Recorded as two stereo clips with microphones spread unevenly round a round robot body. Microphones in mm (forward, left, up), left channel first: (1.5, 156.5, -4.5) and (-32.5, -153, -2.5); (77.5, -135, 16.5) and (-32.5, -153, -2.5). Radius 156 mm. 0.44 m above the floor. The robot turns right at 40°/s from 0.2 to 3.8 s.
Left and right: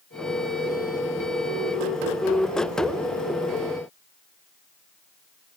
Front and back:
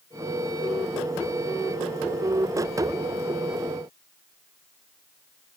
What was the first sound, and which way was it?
Only background noise.